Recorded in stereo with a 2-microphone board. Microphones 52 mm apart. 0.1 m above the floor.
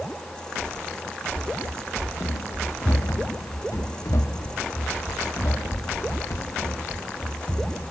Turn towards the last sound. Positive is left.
turn(degrees=45)  # may be behind; listen again after turning